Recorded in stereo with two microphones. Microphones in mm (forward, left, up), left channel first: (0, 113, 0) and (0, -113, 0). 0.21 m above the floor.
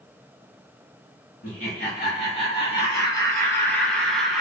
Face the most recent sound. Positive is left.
turn(degrees=0)  # may be behind; listen again after turning